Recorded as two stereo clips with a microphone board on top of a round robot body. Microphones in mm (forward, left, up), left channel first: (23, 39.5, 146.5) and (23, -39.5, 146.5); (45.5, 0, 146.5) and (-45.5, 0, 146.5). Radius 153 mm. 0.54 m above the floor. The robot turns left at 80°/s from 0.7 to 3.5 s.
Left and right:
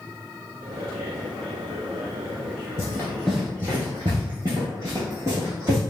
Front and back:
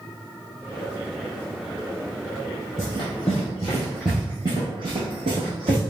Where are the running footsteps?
55° left, 0.7 m; by 5.8 s 155° right, 1.1 m.